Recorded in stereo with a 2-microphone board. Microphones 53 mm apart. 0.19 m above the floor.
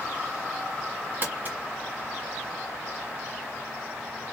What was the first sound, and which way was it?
Crumpling, 35° right (ahead or behind).